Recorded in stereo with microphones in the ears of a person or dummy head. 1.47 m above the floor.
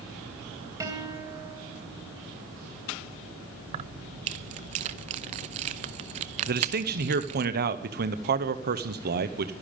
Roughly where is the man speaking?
Right.